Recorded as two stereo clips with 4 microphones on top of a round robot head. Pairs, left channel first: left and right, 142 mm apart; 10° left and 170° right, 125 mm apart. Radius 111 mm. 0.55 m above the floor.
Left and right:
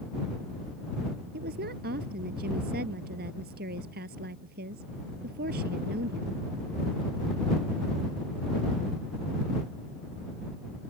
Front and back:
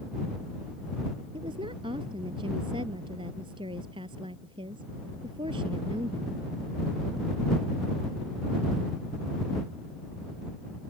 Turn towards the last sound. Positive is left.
turn(degrees=-110)